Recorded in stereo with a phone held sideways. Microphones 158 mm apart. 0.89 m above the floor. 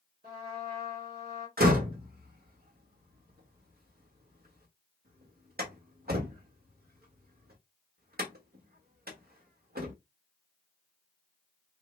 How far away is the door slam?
About 1.2 m.